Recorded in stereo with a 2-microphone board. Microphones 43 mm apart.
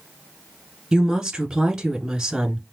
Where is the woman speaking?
15° right (ahead or behind), 1.4 m.